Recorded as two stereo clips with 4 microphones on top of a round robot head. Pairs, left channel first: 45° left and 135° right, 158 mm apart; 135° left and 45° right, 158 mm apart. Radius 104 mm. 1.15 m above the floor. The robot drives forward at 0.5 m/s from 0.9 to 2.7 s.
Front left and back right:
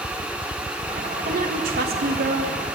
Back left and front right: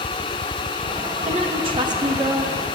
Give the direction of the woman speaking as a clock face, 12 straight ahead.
3 o'clock.